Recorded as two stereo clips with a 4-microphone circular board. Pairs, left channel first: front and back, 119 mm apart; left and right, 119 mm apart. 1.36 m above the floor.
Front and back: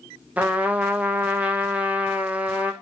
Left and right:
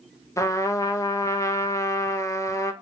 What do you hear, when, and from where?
0.4 s a trumpet: 115° left, 0.6 m